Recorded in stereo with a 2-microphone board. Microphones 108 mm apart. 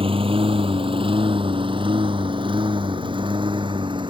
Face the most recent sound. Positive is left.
turn(degrees=-45)  # may be behind; listen again after turning